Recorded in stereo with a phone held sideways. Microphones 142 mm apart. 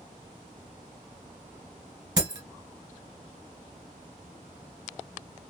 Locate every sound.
2.2 s breaking glass: 30° right (ahead or behind), 1.4 m